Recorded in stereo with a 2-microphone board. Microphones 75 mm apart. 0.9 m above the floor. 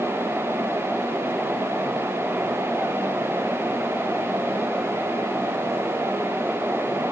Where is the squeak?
I don't hear a squeak.